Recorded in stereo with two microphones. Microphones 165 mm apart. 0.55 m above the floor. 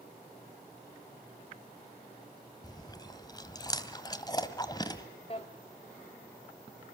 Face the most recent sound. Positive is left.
turn(degrees=40)  # may be behind; listen again after turning